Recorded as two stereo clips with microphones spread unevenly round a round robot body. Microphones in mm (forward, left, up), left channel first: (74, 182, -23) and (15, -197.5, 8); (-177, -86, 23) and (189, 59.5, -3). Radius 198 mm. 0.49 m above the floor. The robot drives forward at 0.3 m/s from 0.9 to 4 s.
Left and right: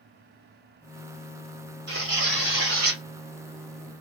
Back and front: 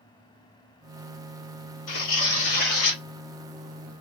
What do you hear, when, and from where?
1.9 s tearing paper: 160° right, 1.6 m; by 3.0 s 165° right, 1.8 m